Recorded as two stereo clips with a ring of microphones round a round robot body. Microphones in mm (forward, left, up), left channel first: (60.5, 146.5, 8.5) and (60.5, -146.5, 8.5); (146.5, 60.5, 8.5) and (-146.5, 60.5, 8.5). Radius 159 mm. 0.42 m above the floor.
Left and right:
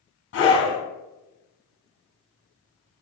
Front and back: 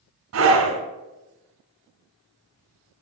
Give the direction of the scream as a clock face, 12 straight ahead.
7 o'clock.